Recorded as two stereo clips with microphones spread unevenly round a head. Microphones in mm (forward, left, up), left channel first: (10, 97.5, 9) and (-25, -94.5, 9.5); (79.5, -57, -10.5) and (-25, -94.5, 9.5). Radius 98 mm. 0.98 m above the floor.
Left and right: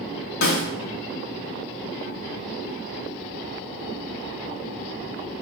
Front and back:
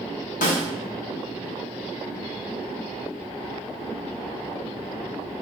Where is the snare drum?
35° left, 0.7 m.